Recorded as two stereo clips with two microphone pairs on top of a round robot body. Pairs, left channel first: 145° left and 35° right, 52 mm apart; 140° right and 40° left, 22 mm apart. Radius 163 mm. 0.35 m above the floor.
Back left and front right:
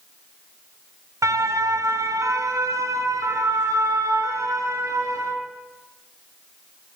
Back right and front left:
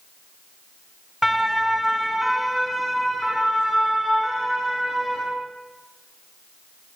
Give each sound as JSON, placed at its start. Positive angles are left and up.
{"t": 1.2, "sound": "a siren", "azimuth_deg": -50, "distance_m": 3.5}